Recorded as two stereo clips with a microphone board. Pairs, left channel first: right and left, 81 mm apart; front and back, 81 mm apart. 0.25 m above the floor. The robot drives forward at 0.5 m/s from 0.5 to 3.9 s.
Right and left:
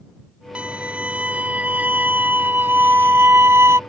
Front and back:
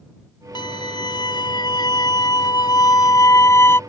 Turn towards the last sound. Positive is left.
turn(degrees=50)